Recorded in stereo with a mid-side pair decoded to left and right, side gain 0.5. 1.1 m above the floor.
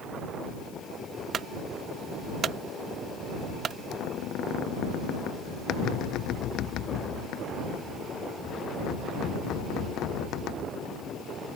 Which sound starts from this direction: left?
A squeak, at 3.9 s.